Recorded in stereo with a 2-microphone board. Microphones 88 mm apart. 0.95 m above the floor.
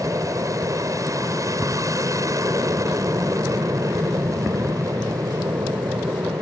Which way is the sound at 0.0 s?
40° right (ahead or behind).